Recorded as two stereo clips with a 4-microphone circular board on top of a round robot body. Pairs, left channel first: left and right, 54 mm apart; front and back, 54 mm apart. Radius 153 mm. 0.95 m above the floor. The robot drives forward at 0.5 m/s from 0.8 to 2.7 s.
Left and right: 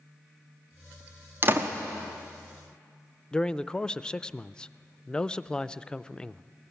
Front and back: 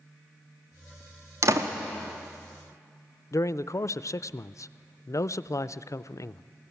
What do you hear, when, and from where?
1.4 s a door slam: 145° right, 1.1 m
3.3 s a man speaking: 15° left, 0.5 m